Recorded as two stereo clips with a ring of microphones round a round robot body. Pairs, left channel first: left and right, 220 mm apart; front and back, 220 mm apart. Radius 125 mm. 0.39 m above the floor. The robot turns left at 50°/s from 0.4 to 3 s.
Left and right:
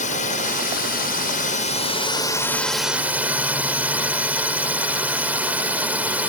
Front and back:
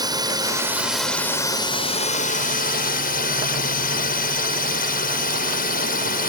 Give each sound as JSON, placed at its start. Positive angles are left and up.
{"t": 0.0, "sound": "a drone", "azimuth_deg": 120}